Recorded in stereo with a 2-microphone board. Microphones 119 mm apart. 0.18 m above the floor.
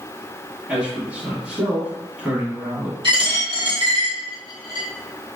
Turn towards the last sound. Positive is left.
turn(degrees=-40)  # may be behind; listen again after turning